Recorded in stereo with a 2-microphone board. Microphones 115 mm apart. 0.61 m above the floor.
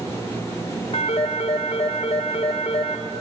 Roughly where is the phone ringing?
Left.